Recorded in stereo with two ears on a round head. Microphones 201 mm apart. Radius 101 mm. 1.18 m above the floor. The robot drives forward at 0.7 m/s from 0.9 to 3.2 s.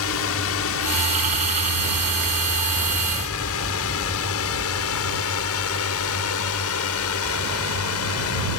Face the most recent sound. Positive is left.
turn(degrees=75)  # may be behind; listen again after turning